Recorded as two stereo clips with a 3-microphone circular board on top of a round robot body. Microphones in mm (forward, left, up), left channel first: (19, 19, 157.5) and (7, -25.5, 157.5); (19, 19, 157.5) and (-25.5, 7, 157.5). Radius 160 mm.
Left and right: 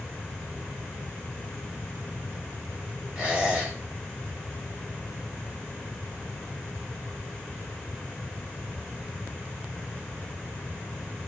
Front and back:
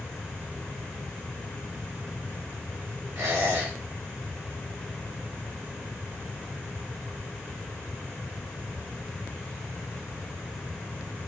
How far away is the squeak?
About 4.5 m.